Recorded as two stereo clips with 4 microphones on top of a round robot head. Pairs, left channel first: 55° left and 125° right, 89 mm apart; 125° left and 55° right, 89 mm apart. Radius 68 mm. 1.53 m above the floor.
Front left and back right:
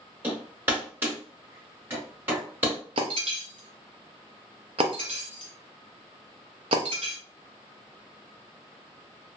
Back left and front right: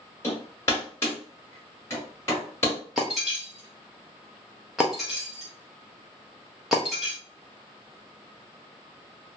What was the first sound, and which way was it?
Hammering, 175° left.